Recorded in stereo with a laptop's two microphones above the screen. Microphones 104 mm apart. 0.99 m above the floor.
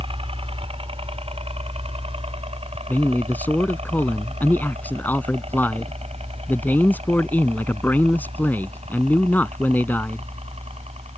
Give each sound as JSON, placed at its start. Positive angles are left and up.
{"t": 0.0, "sound": "a helicopter", "side_deg": -60}
{"t": 2.9, "sound": "a man speaking", "side_deg": 15}